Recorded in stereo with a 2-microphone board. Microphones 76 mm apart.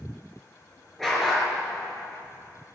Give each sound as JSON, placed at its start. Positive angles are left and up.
{"t": 1.0, "sound": "a dog barking", "side_deg": 5, "distance_m": 4.0}